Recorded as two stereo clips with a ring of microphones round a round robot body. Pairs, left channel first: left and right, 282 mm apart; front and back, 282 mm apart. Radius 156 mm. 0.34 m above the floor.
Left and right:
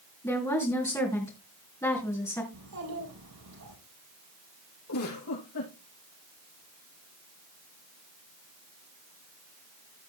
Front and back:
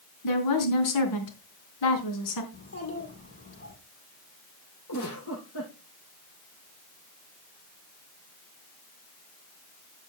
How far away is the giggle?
About 6.5 m.